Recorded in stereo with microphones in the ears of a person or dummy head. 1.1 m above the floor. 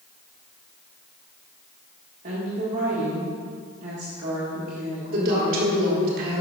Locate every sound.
2.2 s a woman speaking: 40° right (ahead or behind), 1.5 m
5.1 s a woman speaking: 50° right (ahead or behind), 1.7 m